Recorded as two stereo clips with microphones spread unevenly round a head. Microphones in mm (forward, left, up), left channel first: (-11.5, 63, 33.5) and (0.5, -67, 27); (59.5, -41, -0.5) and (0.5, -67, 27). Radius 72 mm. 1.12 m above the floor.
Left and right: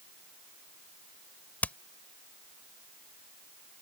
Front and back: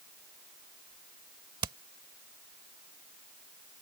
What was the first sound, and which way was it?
Hammering, 175° left.